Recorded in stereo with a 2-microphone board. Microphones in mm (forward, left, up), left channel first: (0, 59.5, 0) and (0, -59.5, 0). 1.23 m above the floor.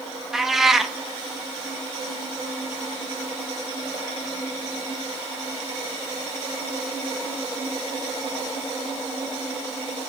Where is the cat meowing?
5° right (ahead or behind), 0.5 m.